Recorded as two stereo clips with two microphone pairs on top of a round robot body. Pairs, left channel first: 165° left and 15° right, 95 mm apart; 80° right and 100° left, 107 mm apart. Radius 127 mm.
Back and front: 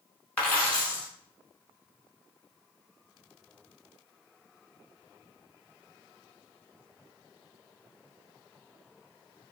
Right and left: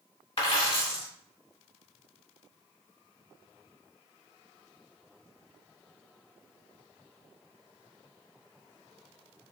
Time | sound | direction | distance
0.4 | a dropped coin | 120° right | 0.8 m